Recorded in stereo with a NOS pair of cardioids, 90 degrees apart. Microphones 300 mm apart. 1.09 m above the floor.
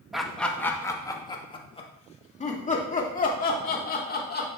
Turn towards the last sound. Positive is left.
turn(degrees=35)